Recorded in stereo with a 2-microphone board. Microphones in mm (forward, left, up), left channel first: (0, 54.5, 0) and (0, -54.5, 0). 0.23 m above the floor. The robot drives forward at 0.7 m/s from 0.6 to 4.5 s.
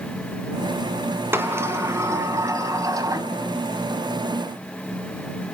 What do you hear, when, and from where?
1.3 s a sliding door: 20° right (ahead or behind), 2 m; by 3.3 s 35° right (ahead or behind), 1.4 m